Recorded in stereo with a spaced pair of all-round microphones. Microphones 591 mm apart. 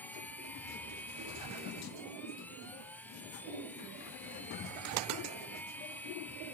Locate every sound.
0.0 s a machine running: 5° left (ahead or behind)